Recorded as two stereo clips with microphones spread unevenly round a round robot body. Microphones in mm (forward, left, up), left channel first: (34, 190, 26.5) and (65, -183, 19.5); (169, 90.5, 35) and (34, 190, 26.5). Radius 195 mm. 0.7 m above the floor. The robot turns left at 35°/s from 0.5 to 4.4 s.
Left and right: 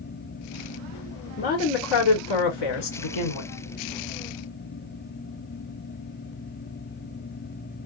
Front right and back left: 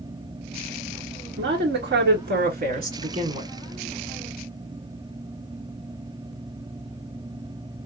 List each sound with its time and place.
1.4 s a woman speaking: 160° left, 1.5 m; by 3.5 s 85° left, 1.5 m